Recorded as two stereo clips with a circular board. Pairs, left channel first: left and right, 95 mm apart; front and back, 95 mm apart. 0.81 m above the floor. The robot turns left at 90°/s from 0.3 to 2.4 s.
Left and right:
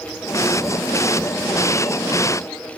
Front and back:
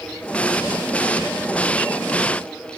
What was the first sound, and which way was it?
Only background noise.